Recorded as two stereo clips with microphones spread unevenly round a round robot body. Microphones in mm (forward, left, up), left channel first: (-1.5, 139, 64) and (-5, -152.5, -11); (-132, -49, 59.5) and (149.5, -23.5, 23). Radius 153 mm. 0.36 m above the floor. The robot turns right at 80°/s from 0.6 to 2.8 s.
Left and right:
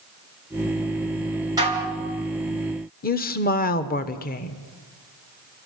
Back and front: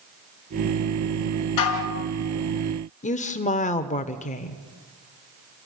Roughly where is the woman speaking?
Behind left.